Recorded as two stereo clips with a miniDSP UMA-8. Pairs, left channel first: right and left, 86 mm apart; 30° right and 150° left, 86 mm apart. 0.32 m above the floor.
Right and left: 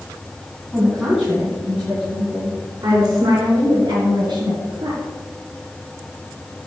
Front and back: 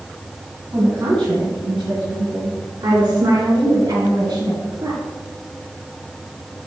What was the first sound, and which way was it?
A woman speaking, straight behind.